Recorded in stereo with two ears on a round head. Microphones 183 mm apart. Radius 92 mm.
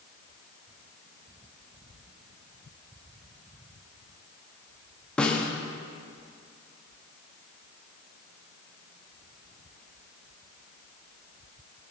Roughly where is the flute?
No flute in this recording.